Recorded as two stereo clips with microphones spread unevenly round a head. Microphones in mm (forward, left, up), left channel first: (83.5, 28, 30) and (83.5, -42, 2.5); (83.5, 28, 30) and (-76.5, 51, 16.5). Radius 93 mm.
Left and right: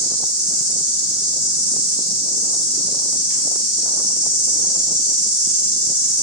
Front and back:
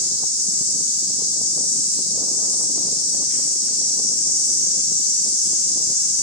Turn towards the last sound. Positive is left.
turn(degrees=-20)